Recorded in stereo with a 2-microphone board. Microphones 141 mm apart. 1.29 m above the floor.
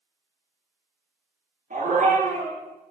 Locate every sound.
1.7 s a dog barking: 65° right (ahead or behind), 9.5 m